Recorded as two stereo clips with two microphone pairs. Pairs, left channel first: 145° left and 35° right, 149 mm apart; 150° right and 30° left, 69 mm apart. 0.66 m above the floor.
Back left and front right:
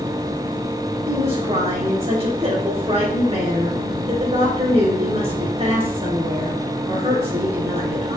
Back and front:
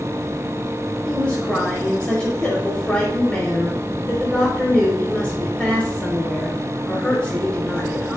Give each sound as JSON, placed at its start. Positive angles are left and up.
{"t": 1.1, "sound": "a woman speaking", "azimuth_deg": -80, "distance_m": 3.5}